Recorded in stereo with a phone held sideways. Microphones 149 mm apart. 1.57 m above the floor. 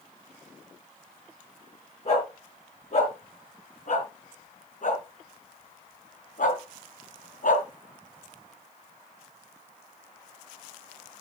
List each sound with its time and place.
2.0 s a dog barking: 50° left (ahead or behind), 6 m; by 7.7 s 65° left (ahead or behind), 3 m